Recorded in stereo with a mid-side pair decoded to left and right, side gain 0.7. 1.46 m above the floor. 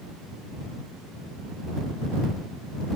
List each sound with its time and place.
Only background noise.